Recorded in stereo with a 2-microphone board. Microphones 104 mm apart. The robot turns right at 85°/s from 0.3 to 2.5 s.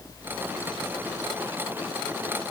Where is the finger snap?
I don't hear a finger snap.